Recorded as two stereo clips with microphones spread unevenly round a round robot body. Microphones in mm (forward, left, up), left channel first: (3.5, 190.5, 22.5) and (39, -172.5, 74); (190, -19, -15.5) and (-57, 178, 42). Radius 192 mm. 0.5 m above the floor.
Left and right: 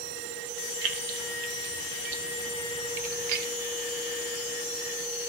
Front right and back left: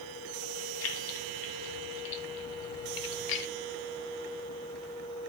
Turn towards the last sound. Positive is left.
turn(degrees=-40)